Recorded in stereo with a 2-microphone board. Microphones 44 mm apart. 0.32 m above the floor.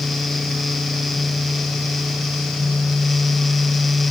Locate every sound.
Only background noise.